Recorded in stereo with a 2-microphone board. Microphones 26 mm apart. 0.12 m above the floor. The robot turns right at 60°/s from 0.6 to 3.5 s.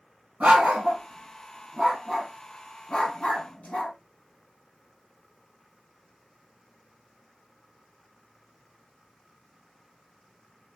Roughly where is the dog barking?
Right.